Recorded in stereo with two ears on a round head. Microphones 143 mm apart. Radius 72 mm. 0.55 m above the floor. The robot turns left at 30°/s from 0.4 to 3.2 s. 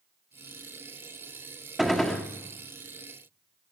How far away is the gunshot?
About 1.3 m.